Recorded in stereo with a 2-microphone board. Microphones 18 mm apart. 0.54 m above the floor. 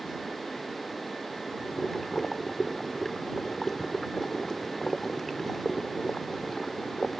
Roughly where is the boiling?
Centre.